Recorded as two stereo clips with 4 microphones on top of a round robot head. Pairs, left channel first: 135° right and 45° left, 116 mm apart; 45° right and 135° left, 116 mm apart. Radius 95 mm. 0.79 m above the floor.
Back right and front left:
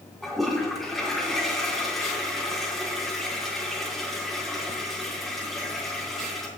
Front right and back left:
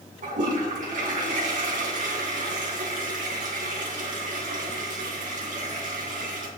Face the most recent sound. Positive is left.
turn(degrees=140)